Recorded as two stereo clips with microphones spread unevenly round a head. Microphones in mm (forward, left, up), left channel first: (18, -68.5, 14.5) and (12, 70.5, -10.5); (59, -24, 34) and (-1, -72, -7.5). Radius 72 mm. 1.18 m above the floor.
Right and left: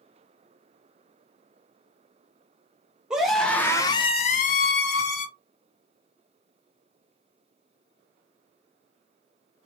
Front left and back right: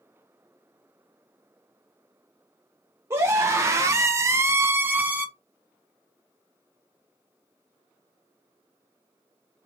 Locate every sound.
3.1 s a scream: 175° left, 0.8 m; by 5.3 s 90° right, 0.8 m